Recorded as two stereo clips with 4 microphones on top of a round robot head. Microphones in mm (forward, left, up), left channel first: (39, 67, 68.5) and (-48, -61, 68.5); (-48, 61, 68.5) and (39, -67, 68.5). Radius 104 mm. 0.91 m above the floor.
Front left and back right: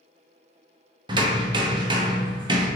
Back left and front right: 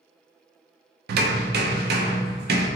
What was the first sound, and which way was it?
Hammering, 65° right.